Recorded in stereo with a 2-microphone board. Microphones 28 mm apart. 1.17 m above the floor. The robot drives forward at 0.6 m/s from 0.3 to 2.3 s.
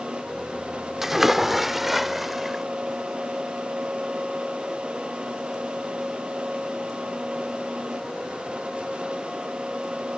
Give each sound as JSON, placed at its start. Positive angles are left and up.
{"t": 1.0, "sound": "a splash", "side_deg": -15}